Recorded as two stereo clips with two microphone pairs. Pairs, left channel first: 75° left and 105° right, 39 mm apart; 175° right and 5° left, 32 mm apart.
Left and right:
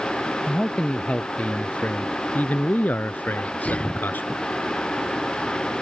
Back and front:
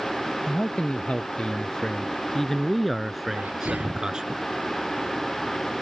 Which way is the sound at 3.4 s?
20° left.